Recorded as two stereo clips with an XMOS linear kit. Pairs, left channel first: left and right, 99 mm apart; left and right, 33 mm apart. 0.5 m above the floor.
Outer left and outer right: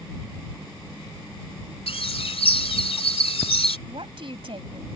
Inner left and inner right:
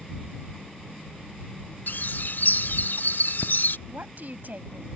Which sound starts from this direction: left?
A bird, at 1.9 s.